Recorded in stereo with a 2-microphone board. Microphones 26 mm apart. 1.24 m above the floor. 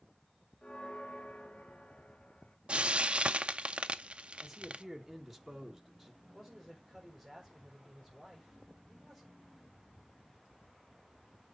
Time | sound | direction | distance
0.6 | a bell | 35° left (ahead or behind) | 0.7 m
2.7 | frying | 45° right (ahead or behind) | 0.6 m
4.4 | a man speaking | 5° right (ahead or behind) | 1.8 m
6.2 | a man speaking | 5° left (ahead or behind) | 5 m